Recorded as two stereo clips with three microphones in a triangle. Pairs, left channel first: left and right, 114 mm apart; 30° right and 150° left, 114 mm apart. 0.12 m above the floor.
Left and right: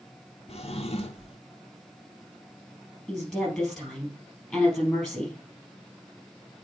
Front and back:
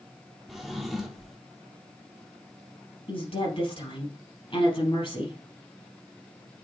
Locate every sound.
0.5 s a drawer: 60° left, 0.8 m
3.1 s a woman speaking: straight ahead, 3.5 m